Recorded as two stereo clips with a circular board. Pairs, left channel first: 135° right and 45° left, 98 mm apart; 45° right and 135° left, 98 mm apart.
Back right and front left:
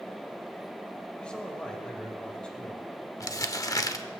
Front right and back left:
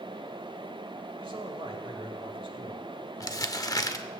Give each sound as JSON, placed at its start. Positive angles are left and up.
{"t": 1.2, "sound": "a man speaking", "azimuth_deg": 145, "distance_m": 1.8}
{"t": 3.2, "sound": "crumpling", "azimuth_deg": -90, "distance_m": 0.6}